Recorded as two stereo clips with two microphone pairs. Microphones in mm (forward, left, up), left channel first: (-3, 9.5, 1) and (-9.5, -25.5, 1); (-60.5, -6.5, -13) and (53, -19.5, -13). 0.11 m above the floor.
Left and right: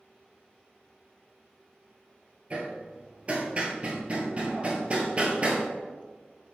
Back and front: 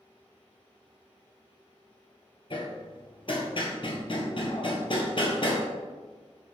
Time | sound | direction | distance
2.5 | hammering | 155° right | 0.8 m